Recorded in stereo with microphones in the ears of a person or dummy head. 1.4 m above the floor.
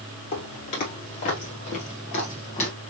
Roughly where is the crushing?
No crushing in this recording.